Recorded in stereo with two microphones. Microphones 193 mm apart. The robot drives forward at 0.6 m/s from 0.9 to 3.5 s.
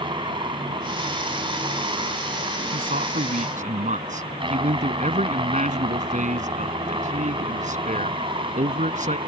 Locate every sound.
0.0 s a helicopter: 25° right (ahead or behind)
2.7 s a man speaking: 45° right (ahead or behind); by 9.2 s 40° right (ahead or behind)